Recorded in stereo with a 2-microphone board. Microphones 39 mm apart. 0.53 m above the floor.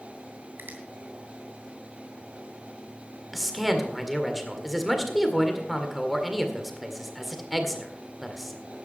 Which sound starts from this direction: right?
A finger snap, at 0.6 s.